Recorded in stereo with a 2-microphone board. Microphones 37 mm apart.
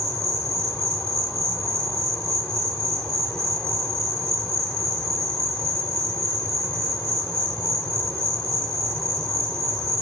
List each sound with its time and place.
0.0 s an insect: 10° left (ahead or behind), 3 m